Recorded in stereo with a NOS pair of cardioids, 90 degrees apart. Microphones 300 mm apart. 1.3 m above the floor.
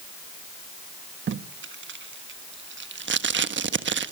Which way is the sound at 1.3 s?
40° right.